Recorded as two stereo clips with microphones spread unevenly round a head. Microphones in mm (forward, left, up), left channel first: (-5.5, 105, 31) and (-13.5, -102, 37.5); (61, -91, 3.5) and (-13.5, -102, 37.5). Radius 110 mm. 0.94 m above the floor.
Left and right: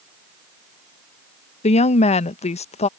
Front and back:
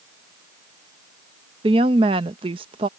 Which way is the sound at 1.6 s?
145° left.